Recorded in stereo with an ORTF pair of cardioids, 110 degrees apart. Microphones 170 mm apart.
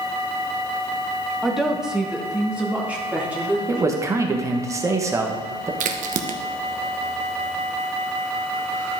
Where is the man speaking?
15° right, 1.4 m.